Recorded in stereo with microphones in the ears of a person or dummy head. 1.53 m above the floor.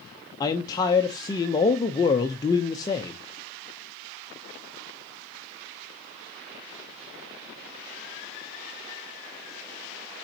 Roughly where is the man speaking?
Centre.